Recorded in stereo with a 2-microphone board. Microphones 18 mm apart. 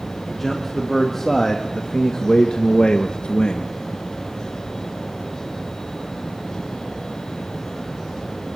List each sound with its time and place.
0.3 s a man speaking: centre (ahead or behind), 3.5 m; by 3.7 s 60° left (ahead or behind), 2.5 m